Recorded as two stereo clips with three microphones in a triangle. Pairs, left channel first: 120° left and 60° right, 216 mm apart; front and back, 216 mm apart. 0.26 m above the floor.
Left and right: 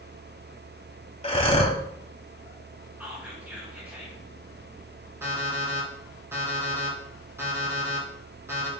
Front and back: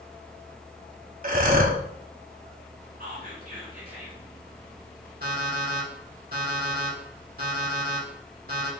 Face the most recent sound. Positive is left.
turn(degrees=-140)